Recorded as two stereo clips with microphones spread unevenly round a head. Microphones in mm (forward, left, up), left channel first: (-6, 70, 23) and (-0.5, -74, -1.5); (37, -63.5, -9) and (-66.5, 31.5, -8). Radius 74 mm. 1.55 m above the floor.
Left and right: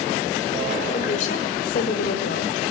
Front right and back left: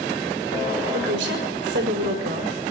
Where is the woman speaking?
135° left, 5 m; by 2.5 s 110° left, 5 m.